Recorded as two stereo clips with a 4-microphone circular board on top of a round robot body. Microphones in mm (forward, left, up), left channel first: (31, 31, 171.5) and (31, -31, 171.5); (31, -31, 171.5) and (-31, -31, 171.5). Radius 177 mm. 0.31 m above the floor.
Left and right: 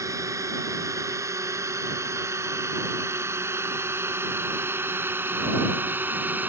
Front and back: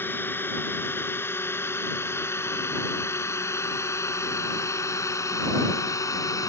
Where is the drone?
55° right; by 6.5 s 30° right.